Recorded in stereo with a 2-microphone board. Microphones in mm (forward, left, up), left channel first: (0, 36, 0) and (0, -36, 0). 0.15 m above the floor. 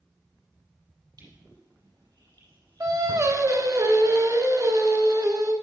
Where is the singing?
50° right (ahead or behind), 1.0 m.